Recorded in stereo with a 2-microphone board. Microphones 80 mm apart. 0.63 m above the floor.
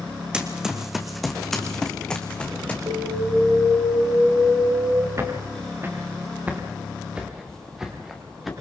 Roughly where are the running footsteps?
Centre.